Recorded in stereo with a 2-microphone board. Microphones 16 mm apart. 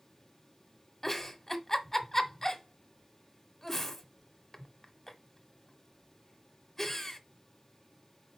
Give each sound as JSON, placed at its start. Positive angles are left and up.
{"t": 1.0, "sound": "a giggle", "side_deg": 20, "distance_m": 1.1}